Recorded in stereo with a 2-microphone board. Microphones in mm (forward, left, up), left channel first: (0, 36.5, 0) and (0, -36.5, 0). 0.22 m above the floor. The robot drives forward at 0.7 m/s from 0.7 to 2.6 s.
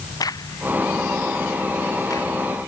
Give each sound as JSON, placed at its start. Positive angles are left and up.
{"t": 0.2, "sound": "a crack", "side_deg": 60}